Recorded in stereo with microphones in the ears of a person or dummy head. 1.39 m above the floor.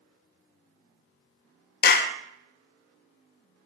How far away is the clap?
About 0.7 m.